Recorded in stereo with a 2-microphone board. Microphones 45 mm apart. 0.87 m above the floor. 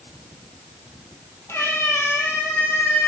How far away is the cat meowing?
About 2 m.